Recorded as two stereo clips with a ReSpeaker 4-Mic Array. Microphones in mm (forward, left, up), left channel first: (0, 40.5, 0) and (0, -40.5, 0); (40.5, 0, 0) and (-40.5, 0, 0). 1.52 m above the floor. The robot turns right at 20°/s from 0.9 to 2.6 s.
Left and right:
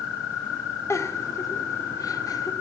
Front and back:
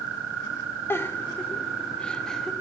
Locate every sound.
0.9 s a giggle: 50° left, 0.7 m; by 2.5 s 85° left, 0.7 m